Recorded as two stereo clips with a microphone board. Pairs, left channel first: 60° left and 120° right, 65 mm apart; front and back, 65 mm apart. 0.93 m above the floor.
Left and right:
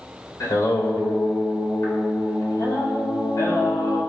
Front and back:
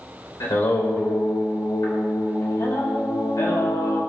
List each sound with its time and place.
0.4 s singing: 30° left, 3 m